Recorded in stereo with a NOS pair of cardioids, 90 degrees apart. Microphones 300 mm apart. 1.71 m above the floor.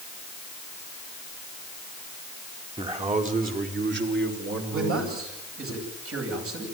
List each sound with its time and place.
2.8 s a man speaking: 20° right, 4 m; by 5.7 s 55° right, 6.5 m
4.7 s a man speaking: 50° right, 10 m